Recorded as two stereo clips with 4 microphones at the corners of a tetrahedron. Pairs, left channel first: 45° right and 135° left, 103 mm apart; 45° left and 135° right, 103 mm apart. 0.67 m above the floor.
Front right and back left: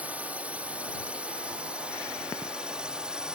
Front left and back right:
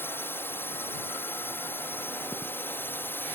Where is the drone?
75° left; by 3.4 s 65° left.